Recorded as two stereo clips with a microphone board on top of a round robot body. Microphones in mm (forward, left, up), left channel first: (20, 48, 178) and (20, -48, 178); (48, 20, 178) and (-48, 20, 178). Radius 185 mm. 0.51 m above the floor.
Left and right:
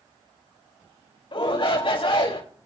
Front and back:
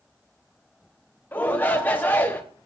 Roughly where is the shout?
Left.